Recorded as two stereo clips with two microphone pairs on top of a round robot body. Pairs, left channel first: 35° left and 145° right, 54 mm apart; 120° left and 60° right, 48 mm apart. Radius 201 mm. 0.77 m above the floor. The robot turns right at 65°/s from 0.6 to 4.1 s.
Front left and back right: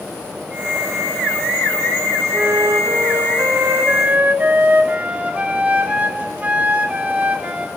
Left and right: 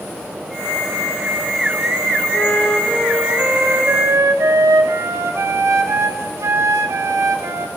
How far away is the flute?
About 1.6 m.